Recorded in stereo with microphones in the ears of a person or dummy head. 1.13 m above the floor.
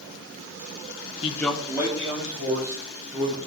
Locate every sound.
1.2 s a man speaking: 30° left (ahead or behind), 0.5 m; by 3.4 s 35° right (ahead or behind), 3 m